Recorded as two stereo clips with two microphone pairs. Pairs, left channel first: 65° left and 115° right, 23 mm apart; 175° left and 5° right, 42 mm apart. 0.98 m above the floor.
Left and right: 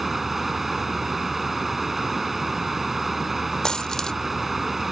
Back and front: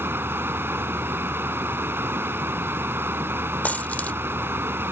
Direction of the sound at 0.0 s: 30° right.